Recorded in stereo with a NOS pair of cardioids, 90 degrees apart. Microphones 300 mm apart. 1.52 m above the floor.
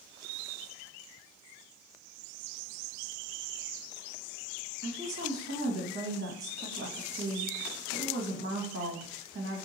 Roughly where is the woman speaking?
Ahead right.